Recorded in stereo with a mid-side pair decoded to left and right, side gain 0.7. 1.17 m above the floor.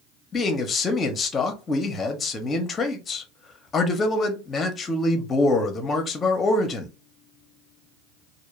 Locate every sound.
0.3 s a man speaking: 30° left, 0.8 m